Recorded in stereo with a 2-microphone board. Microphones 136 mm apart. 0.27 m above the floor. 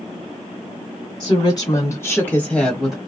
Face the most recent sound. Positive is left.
turn(degrees=-5)  # may be behind; listen again after turning